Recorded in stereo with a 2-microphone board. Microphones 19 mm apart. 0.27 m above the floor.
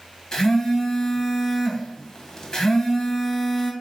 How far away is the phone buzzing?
About 1.0 m.